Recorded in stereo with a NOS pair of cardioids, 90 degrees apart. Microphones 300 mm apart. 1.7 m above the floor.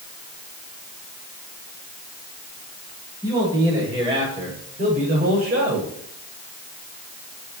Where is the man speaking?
10° right, 8 m; by 5.9 s 40° right, 7 m.